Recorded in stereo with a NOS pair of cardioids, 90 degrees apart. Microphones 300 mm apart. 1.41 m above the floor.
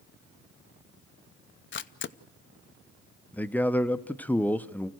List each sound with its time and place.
1.7 s a camera shutter: 40° left, 0.7 m
3.3 s a man speaking: 5° left, 0.7 m